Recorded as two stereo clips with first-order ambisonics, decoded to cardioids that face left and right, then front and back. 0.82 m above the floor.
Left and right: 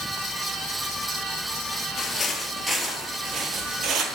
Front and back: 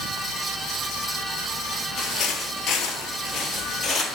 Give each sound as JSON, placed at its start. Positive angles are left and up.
{"t": 2.0, "sound": "footsteps", "azimuth_deg": 30, "distance_m": 1.1}